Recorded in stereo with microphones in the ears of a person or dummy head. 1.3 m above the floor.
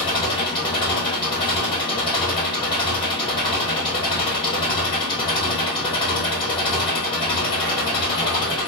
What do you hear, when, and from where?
0.0 s an engine running: 30° left (ahead or behind), 1.4 m